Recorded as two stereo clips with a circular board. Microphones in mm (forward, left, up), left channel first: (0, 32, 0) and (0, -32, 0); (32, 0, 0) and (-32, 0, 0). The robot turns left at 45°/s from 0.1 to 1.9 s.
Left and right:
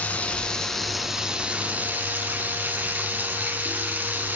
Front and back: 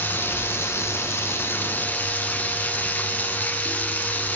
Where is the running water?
35° left, 1.7 m; by 4.4 s 45° right, 1.7 m.